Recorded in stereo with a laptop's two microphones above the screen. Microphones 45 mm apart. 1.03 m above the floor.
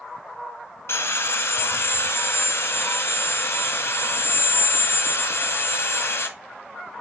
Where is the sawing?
65° left (ahead or behind), 1.7 m.